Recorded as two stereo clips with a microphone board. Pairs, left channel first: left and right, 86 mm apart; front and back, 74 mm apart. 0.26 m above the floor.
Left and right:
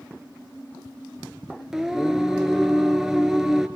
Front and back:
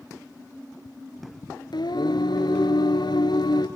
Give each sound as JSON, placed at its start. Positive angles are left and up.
{"t": 1.7, "sound": "singing", "azimuth_deg": -5, "distance_m": 2.0}